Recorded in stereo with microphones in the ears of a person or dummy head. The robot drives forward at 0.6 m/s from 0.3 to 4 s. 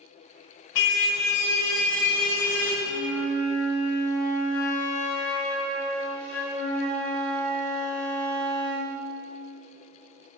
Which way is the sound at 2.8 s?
Centre (ahead or behind).